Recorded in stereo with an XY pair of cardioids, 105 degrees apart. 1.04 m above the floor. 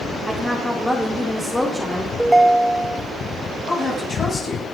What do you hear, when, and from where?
0.3 s a woman speaking: 10° left, 2.5 m
2.2 s a ringtone: 10° right, 0.7 m
3.7 s a woman speaking: 50° left, 9 m